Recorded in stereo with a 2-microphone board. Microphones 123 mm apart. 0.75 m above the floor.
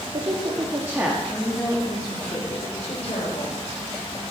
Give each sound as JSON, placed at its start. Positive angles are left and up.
{"t": 0.1, "sound": "a woman speaking", "side_deg": -50, "distance_m": 1.1}